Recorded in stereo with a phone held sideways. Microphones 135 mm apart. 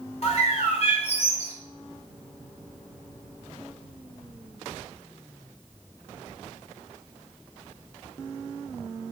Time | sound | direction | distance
0.2 | a bird | 50° left (ahead or behind) | 2 m